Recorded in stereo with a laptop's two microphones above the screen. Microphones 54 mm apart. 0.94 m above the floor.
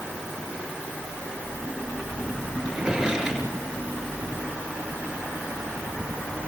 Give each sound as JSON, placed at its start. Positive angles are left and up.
{"t": 2.6, "sound": "a drawer", "side_deg": -5, "distance_m": 7.0}